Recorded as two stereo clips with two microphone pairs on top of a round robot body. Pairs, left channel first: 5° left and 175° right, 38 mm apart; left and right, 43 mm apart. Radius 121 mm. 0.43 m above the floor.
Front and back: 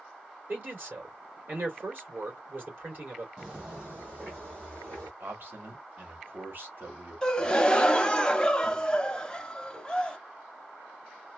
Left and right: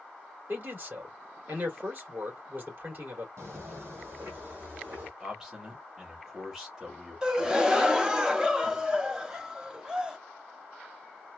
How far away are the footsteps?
About 1.2 m.